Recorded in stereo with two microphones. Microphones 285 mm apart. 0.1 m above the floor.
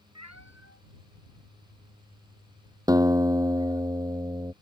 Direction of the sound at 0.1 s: 70° right (ahead or behind).